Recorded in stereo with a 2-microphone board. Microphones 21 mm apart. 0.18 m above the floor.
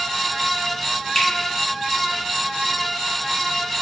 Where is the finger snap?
35° left (ahead or behind), 1.8 m.